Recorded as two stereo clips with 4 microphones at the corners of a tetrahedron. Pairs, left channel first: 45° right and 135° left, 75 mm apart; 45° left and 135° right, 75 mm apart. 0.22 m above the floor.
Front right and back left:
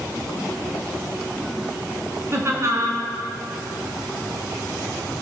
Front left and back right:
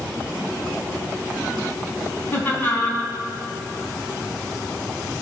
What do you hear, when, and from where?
2.3 s laughter: 100° left, 2 m